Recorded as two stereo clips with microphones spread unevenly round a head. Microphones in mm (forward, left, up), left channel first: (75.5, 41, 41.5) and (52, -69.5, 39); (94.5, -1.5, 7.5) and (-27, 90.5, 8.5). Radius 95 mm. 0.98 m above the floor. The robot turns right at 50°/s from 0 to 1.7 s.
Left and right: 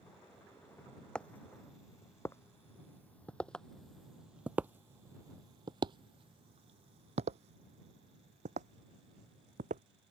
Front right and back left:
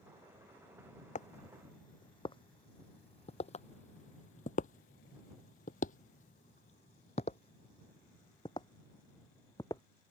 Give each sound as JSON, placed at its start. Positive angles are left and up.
{"t": 1.1, "sound": "footsteps", "azimuth_deg": -5}